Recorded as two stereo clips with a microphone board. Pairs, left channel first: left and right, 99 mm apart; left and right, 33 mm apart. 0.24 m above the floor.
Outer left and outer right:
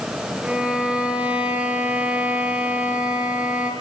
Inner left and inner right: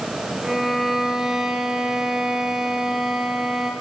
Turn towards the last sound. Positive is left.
turn(degrees=-10)  # may be behind; listen again after turning